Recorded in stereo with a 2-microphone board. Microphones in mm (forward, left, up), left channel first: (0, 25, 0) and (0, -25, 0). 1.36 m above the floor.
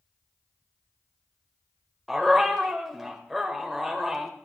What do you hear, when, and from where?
2.1 s a dog barking: 5° right (ahead or behind), 2 m